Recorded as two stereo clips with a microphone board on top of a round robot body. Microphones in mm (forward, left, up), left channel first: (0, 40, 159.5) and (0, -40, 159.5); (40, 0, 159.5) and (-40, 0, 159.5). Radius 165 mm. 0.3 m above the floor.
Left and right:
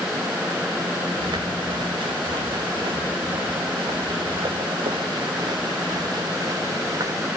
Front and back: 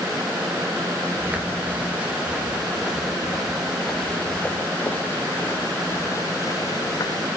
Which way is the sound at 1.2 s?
110° right.